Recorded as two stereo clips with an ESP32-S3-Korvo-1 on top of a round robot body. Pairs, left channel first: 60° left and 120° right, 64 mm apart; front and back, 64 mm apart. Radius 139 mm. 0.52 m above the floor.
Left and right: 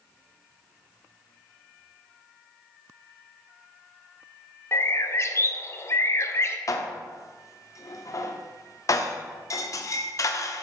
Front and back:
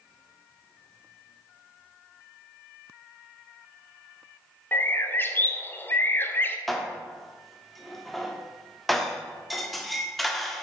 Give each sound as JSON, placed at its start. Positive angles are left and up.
{"t": 4.7, "sound": "a bird", "azimuth_deg": 40, "distance_m": 0.9}
{"t": 6.7, "sound": "dishes clattering", "azimuth_deg": 90, "distance_m": 1.0}